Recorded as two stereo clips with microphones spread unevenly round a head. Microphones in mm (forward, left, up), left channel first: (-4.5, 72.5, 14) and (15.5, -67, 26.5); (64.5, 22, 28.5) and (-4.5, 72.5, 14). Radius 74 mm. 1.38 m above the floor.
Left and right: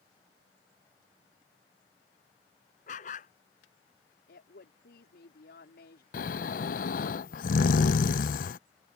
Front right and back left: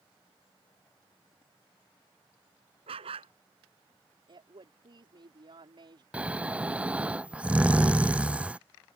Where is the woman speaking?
115° left.